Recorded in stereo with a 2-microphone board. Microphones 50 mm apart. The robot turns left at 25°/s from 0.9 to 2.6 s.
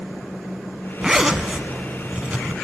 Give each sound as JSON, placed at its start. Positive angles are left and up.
{"t": 1.0, "sound": "a zipper", "azimuth_deg": -15, "distance_m": 0.8}